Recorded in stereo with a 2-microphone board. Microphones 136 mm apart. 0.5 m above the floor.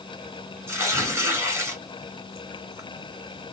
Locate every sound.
0.7 s tearing paper: 20° right (ahead or behind), 2 m